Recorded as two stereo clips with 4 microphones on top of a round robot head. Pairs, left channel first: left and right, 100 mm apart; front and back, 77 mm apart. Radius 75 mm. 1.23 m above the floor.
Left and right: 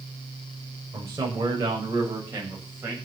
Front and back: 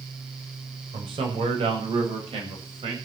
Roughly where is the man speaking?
Behind.